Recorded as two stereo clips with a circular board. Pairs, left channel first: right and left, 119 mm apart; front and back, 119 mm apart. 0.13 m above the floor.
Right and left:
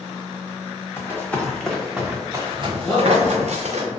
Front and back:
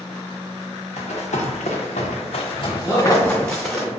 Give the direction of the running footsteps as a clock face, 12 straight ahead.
1 o'clock.